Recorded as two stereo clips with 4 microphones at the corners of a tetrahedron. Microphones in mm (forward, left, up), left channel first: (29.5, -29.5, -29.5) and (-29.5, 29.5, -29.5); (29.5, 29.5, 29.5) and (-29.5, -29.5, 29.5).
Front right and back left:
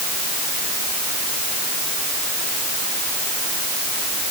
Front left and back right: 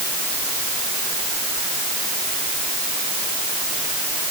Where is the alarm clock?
No alarm clock in this recording.